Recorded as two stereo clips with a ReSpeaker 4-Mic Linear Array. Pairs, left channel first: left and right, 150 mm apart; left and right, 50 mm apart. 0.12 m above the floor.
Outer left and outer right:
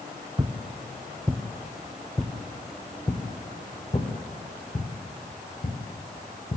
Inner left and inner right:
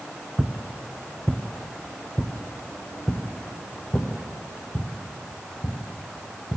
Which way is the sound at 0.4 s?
30° right (ahead or behind).